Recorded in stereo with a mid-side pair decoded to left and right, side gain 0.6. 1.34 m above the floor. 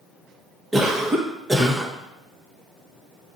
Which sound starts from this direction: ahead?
A cough, at 0.7 s.